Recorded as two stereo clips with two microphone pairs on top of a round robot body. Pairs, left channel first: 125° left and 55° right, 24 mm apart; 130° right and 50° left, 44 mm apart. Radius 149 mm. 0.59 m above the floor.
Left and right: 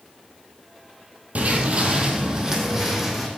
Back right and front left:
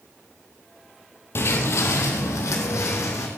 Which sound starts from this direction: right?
Footsteps, at 1.4 s.